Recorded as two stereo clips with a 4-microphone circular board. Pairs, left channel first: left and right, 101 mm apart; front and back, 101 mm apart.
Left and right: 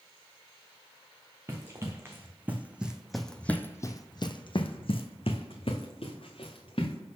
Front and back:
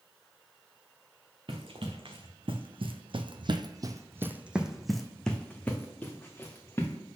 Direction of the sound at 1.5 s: 150° right.